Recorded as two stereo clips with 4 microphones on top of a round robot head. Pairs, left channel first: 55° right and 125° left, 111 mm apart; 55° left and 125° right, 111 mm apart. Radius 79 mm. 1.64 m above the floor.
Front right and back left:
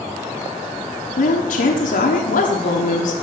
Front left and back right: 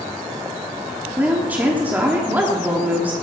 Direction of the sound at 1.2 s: 50° right.